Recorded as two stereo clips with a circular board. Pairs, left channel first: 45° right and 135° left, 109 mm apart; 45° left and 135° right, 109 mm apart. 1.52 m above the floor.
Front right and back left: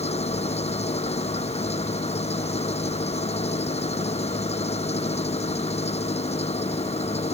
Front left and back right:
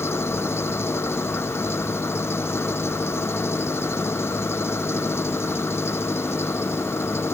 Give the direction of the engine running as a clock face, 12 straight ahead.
1 o'clock.